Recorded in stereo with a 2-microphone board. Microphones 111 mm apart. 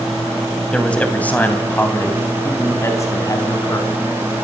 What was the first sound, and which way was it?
A man speaking, 10° left (ahead or behind).